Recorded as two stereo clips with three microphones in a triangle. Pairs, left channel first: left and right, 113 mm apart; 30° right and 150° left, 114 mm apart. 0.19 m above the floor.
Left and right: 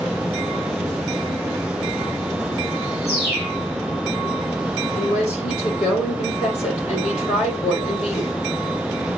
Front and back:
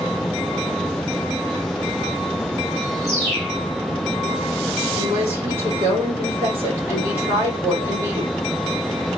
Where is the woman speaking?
80° left, 6 m.